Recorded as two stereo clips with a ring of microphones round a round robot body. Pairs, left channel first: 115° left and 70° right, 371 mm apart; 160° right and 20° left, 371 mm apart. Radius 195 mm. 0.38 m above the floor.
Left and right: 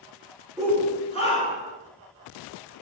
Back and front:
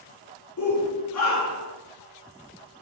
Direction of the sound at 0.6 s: 160° right.